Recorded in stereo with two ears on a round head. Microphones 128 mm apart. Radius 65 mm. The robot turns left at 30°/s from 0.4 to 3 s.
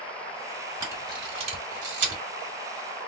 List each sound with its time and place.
0.8 s a camera shutter: 20° right (ahead or behind), 1.9 m; by 2.2 s 60° right (ahead or behind), 1.9 m